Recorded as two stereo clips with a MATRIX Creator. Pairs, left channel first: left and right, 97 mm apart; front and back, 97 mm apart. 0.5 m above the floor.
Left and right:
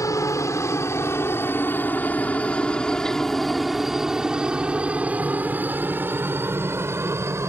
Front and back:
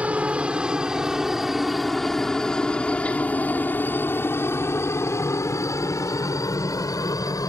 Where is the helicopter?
110° left; by 7.5 s 40° right.